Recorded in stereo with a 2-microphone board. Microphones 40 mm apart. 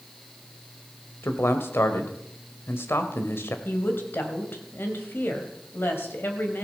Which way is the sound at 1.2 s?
65° left (ahead or behind).